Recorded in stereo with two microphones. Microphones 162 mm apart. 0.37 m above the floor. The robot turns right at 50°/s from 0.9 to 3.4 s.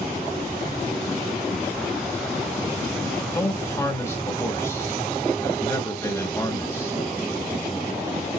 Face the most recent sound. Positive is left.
turn(degrees=15)  # may be behind; listen again after turning